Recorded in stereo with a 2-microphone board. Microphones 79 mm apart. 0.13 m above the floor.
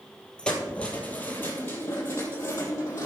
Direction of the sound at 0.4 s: 15° left (ahead or behind).